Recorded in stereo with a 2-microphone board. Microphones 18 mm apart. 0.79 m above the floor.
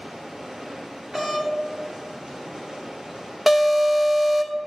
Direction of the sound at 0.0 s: 70° right (ahead or behind).